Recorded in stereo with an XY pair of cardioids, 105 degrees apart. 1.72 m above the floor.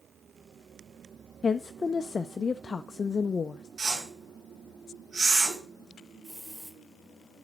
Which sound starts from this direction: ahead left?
A woman speaking, at 1.4 s.